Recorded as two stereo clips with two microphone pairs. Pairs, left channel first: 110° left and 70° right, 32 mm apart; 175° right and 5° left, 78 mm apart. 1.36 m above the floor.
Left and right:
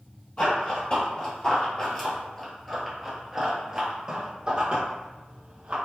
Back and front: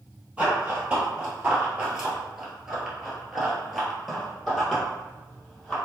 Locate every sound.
0.4 s running footsteps: 75° left, 1.9 m; by 5.8 s 95° right, 2 m